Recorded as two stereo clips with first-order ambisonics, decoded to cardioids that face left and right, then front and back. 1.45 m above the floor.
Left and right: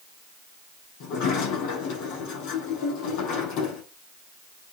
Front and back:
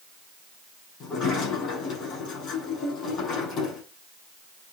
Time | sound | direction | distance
1.0 | a sliding door | 60° left | 7 m